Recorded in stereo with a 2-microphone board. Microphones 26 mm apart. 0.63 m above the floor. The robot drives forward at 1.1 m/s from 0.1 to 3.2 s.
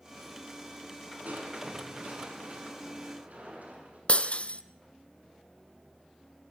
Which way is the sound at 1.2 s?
80° right.